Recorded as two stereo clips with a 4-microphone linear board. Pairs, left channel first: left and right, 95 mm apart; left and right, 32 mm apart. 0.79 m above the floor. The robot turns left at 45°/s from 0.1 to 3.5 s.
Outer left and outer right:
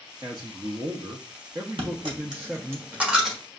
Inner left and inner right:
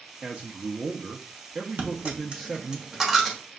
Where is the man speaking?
60° right, 0.6 m; by 2.8 s 175° right, 0.6 m.